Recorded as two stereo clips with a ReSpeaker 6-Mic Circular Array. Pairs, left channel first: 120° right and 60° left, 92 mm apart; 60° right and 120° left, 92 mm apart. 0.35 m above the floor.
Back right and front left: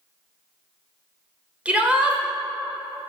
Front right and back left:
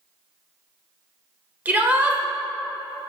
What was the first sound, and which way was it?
A shout, 100° left.